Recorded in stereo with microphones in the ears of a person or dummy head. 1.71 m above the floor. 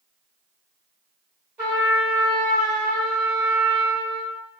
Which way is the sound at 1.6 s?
10° right (ahead or behind).